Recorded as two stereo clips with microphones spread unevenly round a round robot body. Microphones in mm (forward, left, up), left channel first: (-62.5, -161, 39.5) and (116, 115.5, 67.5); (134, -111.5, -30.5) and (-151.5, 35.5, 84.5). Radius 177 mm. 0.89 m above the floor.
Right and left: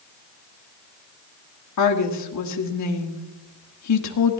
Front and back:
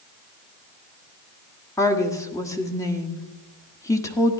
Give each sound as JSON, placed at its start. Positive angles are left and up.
{"t": 1.8, "sound": "a woman speaking", "azimuth_deg": -100, "distance_m": 1.6}